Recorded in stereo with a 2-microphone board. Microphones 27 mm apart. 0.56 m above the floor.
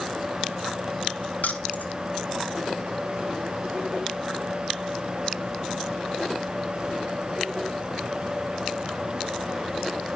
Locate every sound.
1.4 s keys jangling: 80° left, 2.5 m